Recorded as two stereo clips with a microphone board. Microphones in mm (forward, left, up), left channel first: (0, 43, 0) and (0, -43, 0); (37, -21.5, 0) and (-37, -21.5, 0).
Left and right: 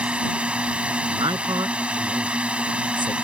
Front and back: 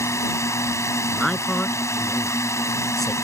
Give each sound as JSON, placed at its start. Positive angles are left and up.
{"t": 0.0, "sound": "a drone", "azimuth_deg": -20}
{"t": 1.1, "sound": "a man speaking", "azimuth_deg": -85}